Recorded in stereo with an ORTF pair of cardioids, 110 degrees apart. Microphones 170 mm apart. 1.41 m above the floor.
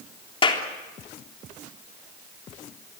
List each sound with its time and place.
0.4 s a clap: 30° left, 3.5 m